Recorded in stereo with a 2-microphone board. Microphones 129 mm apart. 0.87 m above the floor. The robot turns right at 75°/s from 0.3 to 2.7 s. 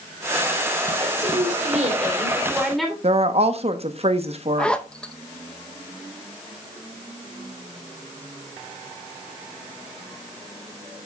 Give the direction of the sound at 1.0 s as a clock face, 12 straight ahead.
4 o'clock.